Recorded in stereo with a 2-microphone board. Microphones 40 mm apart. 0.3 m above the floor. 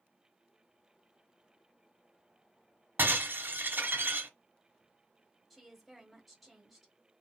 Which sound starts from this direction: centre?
A woman speaking, at 5.5 s.